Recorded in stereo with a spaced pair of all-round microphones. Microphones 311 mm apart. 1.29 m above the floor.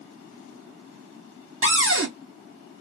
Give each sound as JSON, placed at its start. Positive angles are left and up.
{"t": 1.6, "sound": "a cupboard door", "side_deg": -40, "distance_m": 0.7}